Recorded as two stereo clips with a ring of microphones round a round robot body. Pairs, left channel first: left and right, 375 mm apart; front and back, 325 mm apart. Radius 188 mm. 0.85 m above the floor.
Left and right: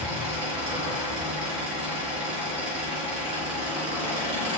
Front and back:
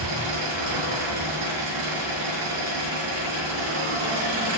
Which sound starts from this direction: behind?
An engine running, at 0.0 s.